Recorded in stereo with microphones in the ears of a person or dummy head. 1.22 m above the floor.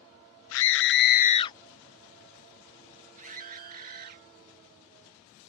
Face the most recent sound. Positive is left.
turn(degrees=-50)  # may be behind; listen again after turning